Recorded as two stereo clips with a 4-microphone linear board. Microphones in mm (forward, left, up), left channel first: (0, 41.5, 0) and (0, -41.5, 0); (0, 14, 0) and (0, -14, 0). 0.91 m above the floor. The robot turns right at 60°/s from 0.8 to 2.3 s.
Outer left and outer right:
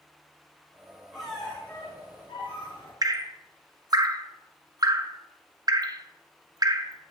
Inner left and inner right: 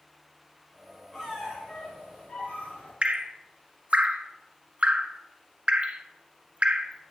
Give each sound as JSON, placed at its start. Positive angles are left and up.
{"t": 1.1, "sound": "a squeak", "azimuth_deg": -5, "distance_m": 3.0}
{"t": 3.0, "sound": "dripping", "side_deg": -45, "distance_m": 0.5}